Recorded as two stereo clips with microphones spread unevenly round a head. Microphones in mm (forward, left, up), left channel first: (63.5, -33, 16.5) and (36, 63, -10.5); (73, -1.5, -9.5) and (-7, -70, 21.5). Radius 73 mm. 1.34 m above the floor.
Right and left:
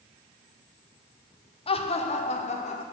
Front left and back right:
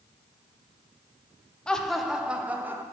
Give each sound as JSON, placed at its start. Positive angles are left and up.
{"t": 1.7, "sound": "laughter", "azimuth_deg": -40, "distance_m": 1.0}